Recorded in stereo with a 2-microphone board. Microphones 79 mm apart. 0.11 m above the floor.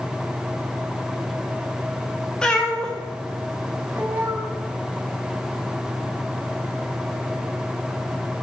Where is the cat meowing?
10° left (ahead or behind), 2.5 m; by 4.5 s 25° right (ahead or behind), 2.5 m.